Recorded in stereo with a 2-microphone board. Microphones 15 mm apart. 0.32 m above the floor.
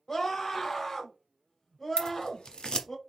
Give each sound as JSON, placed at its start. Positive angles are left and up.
{"t": 0.1, "sound": "a scream", "side_deg": 25, "distance_m": 1.1}
{"t": 2.0, "sound": "scissors", "side_deg": 60, "distance_m": 0.9}